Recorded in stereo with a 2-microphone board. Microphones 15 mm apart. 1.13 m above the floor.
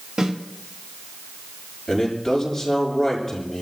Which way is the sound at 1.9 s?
20° left (ahead or behind).